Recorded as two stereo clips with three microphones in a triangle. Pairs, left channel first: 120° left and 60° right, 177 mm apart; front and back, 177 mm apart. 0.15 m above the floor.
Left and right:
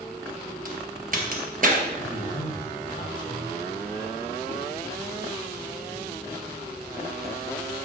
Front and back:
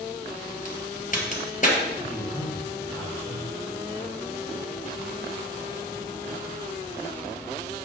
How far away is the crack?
About 2 m.